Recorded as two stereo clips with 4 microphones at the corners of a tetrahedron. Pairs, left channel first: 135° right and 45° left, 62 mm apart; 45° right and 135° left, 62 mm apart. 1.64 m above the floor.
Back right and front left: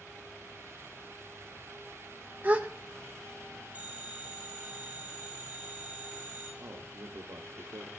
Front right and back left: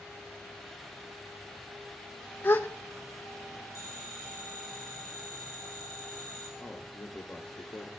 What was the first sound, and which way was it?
A gasp, straight ahead.